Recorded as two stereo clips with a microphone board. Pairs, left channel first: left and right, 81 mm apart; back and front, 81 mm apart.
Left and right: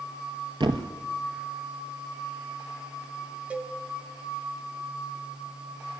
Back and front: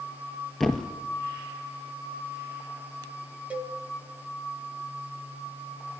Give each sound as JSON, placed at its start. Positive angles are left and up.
{"t": 0.6, "sound": "a thud", "azimuth_deg": -95, "distance_m": 1.1}
{"t": 3.5, "sound": "a cowbell", "azimuth_deg": -40, "distance_m": 0.8}